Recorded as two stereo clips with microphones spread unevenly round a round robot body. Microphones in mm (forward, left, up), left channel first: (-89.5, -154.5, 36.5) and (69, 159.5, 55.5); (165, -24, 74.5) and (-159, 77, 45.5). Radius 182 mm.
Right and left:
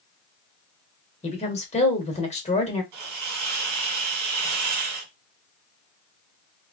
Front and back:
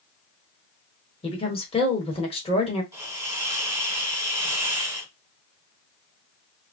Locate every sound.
1.2 s a woman speaking: 80° right, 1.1 m
2.9 s a hiss: 85° left, 1.6 m